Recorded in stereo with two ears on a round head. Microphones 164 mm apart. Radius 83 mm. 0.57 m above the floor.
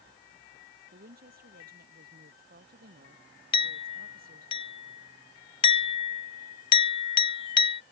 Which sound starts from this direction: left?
A clink, at 3.5 s.